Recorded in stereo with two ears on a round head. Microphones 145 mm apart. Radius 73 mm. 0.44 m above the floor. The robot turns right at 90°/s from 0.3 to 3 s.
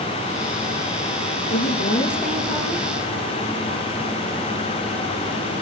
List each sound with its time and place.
1.5 s a woman speaking: 110° left, 7 m; by 2.9 s 125° right, 7 m